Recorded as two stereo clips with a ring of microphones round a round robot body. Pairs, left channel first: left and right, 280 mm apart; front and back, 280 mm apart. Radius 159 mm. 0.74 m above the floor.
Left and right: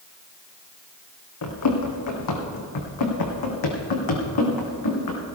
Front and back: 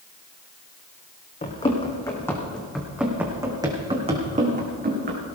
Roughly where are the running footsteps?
Ahead left.